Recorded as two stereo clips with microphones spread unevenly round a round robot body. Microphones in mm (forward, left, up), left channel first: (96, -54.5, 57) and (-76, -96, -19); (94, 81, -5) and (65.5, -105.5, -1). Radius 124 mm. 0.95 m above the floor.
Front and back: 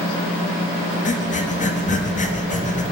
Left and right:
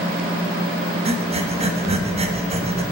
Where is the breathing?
40° right, 1.3 m.